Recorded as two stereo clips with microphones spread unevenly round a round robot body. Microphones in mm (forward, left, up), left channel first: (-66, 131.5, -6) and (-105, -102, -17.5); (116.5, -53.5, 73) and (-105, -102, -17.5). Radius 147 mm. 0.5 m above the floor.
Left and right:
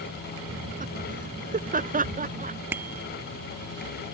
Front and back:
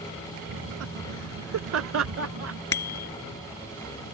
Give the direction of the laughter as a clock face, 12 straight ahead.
5 o'clock.